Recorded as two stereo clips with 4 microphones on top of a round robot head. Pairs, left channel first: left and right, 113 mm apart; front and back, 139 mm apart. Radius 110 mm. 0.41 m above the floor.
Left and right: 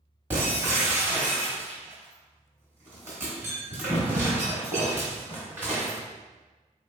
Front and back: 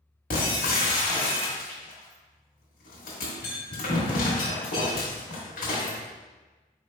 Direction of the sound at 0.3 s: 15° right.